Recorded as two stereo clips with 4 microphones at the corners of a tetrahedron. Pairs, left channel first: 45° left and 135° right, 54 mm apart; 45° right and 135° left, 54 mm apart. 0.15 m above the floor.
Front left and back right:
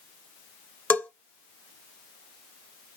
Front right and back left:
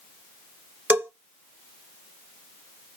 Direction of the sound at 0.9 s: 90° left.